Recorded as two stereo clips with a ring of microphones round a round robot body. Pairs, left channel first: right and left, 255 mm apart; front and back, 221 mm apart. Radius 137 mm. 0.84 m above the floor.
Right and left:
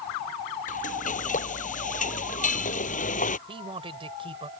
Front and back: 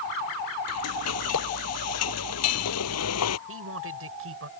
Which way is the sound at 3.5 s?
160° left.